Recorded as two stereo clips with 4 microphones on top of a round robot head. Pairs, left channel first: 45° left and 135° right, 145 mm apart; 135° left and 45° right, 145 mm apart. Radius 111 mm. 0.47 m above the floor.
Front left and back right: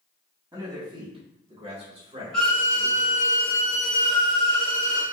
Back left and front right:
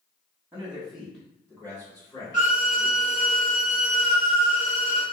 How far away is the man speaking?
About 1.3 m.